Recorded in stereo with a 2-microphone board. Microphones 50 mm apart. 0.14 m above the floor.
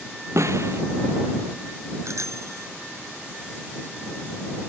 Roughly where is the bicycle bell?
Right.